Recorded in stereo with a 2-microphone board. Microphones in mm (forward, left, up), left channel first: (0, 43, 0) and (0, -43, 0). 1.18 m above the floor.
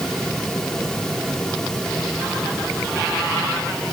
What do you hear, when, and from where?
Only background noise.